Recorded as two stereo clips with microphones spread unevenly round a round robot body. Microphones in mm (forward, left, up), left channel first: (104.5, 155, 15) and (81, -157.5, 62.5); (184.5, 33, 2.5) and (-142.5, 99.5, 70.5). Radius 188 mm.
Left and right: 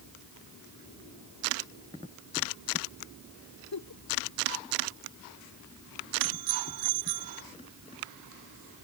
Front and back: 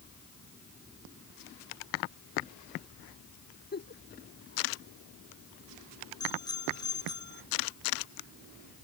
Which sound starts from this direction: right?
A bicycle bell, at 6.2 s.